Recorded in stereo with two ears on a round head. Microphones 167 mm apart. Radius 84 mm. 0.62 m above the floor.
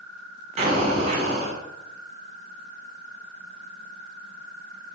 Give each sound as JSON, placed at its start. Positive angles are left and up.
{"t": 0.6, "sound": "an explosion", "side_deg": -35, "distance_m": 1.5}